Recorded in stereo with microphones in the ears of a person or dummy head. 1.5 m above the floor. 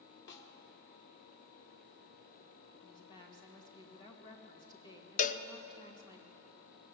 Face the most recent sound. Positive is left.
turn(degrees=40)  # may be behind; listen again after turning